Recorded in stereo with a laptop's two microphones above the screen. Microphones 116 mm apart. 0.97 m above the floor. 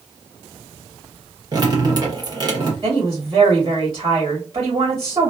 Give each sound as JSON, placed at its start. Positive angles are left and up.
{"t": 1.5, "sound": "dripping", "side_deg": -35, "distance_m": 1.0}
{"t": 2.8, "sound": "a woman speaking", "side_deg": -35, "distance_m": 1.8}